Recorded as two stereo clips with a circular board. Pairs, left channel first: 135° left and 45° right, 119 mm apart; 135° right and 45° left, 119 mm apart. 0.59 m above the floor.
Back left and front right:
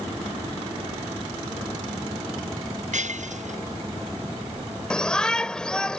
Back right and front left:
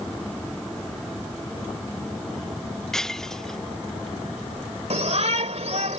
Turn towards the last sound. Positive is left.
turn(degrees=50)